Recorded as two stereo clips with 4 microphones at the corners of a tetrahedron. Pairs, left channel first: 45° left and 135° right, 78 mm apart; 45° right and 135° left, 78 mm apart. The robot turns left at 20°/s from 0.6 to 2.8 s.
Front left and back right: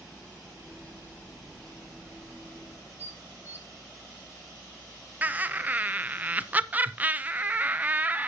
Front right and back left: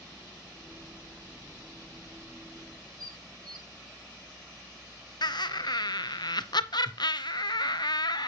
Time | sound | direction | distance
3.0 | dishes clattering | 165° left | 1.4 m
5.2 | laughter | 65° right | 0.7 m